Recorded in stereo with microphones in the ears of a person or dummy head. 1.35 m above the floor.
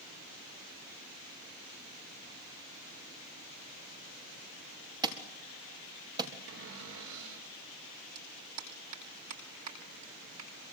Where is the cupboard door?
75° right (ahead or behind), 4.5 m.